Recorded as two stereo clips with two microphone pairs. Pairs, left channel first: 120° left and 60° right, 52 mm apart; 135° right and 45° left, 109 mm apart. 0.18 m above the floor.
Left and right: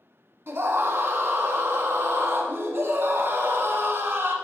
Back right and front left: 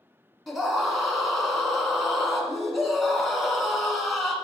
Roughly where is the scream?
Ahead right.